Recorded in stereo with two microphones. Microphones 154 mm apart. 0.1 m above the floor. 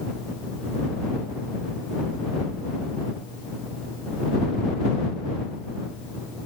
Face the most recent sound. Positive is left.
No sound to turn to.